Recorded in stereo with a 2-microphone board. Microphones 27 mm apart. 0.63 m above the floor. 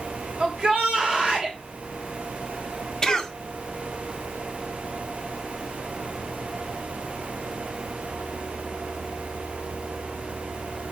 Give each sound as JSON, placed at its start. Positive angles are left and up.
{"t": 0.4, "sound": "a shout", "side_deg": -35, "distance_m": 3.0}
{"t": 3.0, "sound": "a cough", "side_deg": 25, "distance_m": 1.1}